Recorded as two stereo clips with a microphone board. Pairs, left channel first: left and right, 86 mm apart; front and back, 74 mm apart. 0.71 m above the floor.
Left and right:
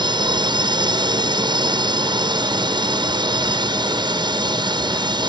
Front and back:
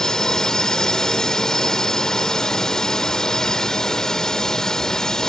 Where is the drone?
80° right.